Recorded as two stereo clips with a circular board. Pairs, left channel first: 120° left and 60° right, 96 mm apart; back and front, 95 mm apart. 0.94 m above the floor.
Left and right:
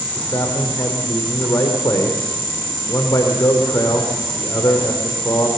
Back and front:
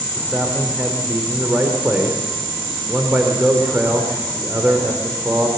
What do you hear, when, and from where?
0.1 s a man speaking: 70° left, 3.5 m